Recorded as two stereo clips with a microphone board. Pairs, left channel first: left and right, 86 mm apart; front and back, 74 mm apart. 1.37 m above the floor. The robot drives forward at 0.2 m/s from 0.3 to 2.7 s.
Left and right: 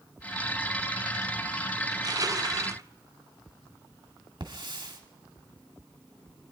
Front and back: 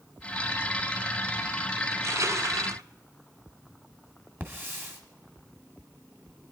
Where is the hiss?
120° right, 2 m.